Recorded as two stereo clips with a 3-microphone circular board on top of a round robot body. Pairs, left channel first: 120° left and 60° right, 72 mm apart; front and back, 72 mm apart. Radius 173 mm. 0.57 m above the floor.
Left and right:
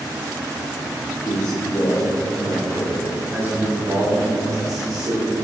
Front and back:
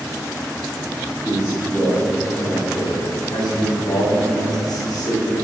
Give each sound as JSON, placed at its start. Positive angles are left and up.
{"t": 1.2, "sound": "a man speaking", "azimuth_deg": 75, "distance_m": 2.0}